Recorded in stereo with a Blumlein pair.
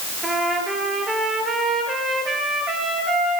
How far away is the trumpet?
About 4.5 m.